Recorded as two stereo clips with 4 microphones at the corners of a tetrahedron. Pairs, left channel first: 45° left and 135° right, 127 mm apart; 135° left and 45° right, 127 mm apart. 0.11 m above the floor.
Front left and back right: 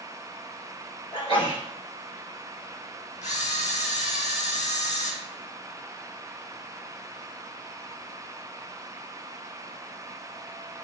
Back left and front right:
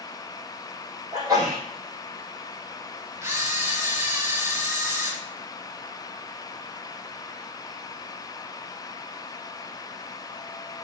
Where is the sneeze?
10° left, 3 m.